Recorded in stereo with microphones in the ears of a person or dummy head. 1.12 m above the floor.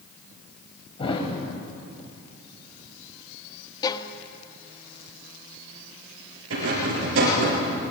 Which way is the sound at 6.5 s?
80° right.